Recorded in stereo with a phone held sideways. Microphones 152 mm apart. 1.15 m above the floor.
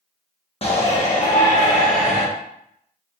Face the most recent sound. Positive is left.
turn(degrees=55)  # may be behind; listen again after turning